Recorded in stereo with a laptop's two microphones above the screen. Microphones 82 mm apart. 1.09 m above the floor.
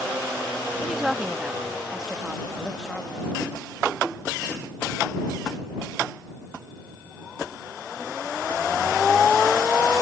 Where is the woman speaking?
5° right (ahead or behind).